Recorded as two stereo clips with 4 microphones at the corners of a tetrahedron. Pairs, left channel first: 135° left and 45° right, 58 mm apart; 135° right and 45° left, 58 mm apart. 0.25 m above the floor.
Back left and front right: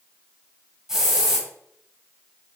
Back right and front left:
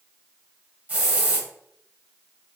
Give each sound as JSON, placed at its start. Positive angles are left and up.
{"t": 0.9, "sound": "a hiss", "azimuth_deg": 25, "distance_m": 1.3}